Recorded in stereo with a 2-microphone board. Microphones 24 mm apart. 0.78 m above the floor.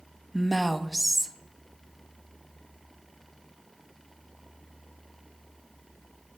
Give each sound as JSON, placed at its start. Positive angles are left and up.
{"t": 0.3, "sound": "a woman speaking", "side_deg": 0, "distance_m": 0.5}